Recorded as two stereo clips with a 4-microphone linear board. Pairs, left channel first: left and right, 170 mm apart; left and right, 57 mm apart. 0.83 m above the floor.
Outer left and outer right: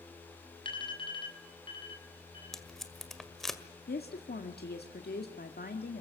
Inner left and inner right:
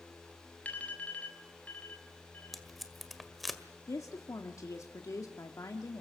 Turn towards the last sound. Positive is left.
turn(degrees=65)  # may be behind; listen again after turning